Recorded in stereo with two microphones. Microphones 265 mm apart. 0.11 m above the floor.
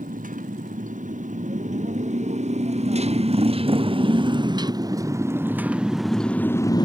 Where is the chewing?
No chewing in this recording.